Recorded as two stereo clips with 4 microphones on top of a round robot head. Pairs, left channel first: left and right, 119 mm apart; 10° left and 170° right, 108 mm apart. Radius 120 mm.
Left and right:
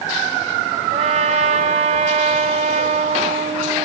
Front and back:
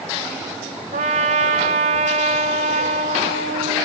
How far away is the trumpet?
About 1.3 m.